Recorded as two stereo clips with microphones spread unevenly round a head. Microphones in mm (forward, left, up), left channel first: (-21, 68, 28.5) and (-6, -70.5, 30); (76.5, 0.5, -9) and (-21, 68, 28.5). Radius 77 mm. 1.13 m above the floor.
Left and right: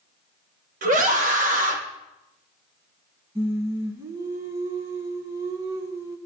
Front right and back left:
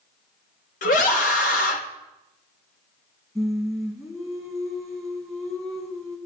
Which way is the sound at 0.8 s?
45° right.